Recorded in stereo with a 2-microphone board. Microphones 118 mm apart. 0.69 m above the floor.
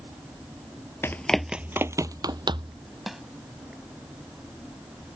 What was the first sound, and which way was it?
Running footsteps, 20° left (ahead or behind).